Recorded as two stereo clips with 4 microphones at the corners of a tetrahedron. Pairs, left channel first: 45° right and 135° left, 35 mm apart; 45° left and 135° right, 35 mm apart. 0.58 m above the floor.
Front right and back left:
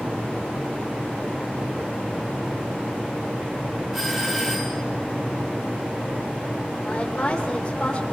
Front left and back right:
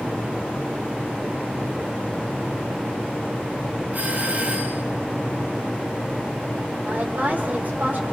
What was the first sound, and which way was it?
A doorbell, 145° right.